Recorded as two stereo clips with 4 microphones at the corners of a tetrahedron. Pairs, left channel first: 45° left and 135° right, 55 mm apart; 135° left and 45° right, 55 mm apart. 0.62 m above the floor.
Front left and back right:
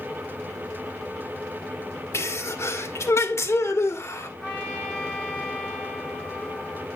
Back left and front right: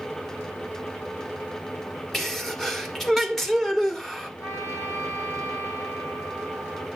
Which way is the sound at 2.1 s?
55° left.